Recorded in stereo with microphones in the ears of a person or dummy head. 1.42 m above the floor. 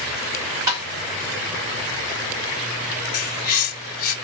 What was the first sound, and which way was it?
Tapping, 20° right (ahead or behind).